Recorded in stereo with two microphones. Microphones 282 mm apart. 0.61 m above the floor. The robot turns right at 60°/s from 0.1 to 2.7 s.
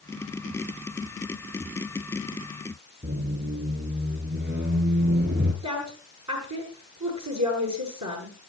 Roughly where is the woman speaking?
Right.